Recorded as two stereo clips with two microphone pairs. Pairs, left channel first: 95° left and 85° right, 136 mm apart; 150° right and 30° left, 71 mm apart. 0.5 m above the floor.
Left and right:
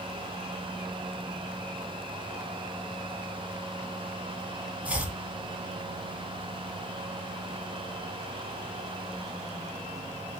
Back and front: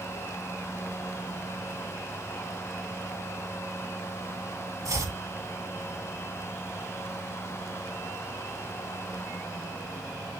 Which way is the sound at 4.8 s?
5° right.